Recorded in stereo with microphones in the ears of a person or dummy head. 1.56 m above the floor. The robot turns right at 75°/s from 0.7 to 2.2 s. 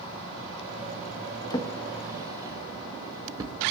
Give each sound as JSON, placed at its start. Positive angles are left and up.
{"t": 1.5, "sound": "a drawer", "side_deg": 20, "distance_m": 1.1}